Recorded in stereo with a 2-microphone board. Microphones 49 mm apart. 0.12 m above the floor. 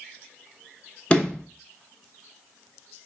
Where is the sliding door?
20° left (ahead or behind), 0.6 m.